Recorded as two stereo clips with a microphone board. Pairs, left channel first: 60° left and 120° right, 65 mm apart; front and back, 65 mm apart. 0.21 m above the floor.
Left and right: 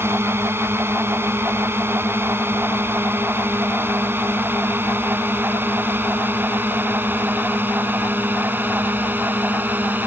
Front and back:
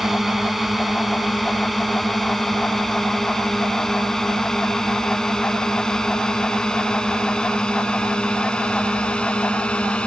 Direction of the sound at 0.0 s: 95° right.